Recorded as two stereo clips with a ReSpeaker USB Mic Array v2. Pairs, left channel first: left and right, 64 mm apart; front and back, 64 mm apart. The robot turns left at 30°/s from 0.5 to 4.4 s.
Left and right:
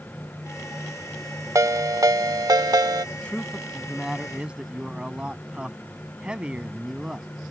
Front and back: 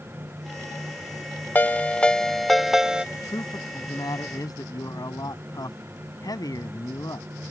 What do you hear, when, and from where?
1.6 s a ringtone: 60° right; by 3.0 s 105° right
3.1 s a man speaking: 25° left; by 7.3 s 15° right